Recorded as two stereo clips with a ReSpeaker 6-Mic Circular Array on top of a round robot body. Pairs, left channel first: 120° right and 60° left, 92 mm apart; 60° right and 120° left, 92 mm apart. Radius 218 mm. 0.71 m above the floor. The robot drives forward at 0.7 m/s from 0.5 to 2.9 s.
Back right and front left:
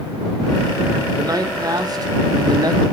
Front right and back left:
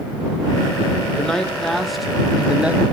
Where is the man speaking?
20° left, 2 m; by 2.8 s 50° left, 1.3 m.